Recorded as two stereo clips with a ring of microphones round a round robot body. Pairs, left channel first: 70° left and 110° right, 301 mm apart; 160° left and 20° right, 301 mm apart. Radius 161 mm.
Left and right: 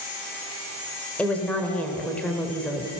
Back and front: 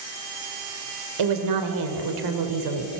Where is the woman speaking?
20° right, 2 m.